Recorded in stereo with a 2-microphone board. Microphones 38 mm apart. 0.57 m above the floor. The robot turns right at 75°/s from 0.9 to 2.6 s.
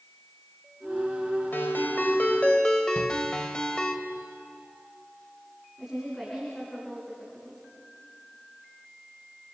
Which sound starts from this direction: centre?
A woman speaking, at 5.8 s.